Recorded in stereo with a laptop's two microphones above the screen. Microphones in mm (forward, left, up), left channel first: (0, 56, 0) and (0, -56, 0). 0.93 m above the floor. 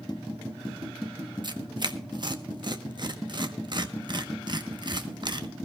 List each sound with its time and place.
1.4 s tearing paper: 45° right (ahead or behind), 1.0 m